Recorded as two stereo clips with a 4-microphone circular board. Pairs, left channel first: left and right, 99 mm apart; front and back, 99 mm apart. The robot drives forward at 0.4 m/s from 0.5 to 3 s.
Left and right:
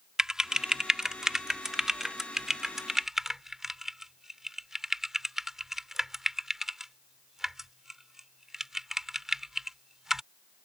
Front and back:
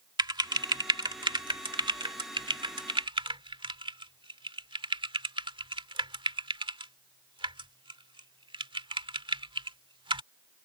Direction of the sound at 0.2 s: 170° right.